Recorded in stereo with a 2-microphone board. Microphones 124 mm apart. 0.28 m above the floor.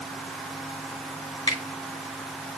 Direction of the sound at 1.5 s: 50° left (ahead or behind).